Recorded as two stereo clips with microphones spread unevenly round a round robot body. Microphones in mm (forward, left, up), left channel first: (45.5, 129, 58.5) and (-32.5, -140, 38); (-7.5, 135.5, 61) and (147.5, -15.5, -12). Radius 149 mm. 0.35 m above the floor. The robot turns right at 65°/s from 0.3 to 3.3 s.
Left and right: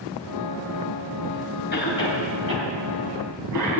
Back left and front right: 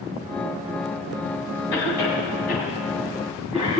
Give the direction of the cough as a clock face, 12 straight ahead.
8 o'clock.